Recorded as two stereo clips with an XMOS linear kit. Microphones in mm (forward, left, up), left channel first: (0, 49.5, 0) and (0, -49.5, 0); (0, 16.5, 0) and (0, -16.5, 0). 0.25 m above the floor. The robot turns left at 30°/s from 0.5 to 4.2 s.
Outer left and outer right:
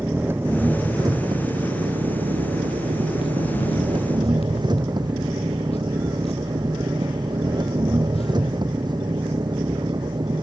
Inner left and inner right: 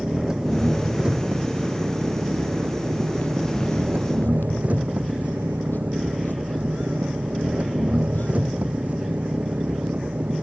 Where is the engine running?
20° right; by 10.4 s 135° right.